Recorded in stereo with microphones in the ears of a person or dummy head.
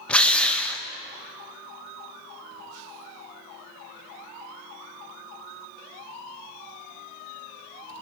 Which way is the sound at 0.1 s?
5° left (ahead or behind).